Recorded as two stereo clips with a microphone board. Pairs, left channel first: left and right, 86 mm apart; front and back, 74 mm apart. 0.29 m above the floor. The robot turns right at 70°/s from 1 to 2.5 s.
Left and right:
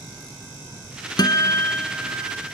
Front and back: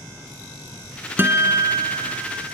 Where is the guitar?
120° left, 0.9 m; by 2.4 s 155° right, 0.9 m.